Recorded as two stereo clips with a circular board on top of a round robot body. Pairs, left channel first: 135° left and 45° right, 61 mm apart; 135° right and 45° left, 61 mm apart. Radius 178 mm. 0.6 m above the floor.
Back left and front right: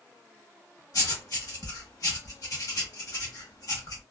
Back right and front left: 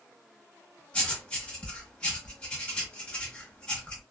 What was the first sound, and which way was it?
Writing, 155° left.